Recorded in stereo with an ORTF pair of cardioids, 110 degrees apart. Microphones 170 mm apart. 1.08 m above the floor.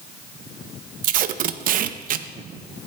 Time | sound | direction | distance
1.0 | tape being pulled | 60° right | 0.7 m